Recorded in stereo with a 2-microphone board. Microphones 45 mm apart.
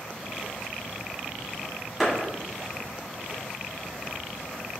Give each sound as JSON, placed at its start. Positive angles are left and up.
{"t": 2.0, "sound": "a clap", "side_deg": -5, "distance_m": 1.7}